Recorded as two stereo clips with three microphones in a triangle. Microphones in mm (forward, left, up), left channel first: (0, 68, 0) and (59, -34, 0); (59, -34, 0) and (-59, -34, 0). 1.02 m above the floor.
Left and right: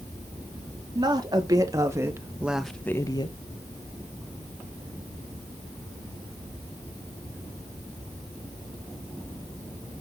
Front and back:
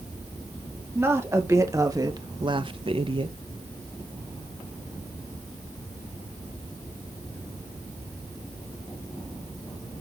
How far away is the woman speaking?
About 2.5 m.